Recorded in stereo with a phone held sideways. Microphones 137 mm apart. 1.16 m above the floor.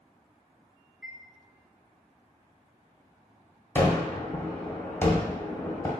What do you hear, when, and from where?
1.0 s a chime: centre (ahead or behind), 0.8 m
3.8 s a gunshot: 20° left (ahead or behind), 1.3 m